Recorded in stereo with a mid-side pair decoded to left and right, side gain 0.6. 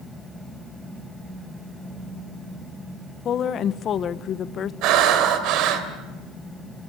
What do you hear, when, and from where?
0.0 s a fan: 5° left, 5.5 m
3.2 s a woman speaking: 45° left, 1.0 m
4.8 s breathing: 70° right, 3 m